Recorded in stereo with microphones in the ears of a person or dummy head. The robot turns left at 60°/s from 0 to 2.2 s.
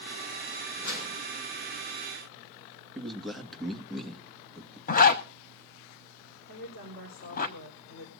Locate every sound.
0.8 s a whoosh: 65° left (ahead or behind), 6 m; by 1.2 s 85° left, 6 m
3.0 s a man speaking: 5° left (ahead or behind), 1.9 m
4.9 s a zipper: 40° left (ahead or behind), 1.3 m
6.5 s a woman speaking: 65° left (ahead or behind), 4 m